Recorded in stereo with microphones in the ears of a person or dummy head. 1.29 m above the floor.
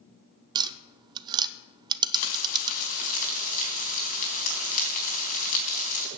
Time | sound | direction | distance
0.6 | tapping | 20° right (ahead or behind) | 0.6 m
2.1 | frying | 40° left (ahead or behind) | 4 m